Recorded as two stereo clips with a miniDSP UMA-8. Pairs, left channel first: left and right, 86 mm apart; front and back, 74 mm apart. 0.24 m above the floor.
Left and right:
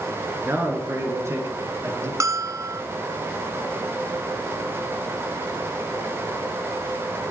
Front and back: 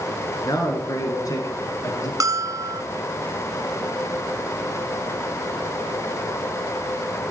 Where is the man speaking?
30° right, 3.5 m; by 2.1 s 40° right, 5 m.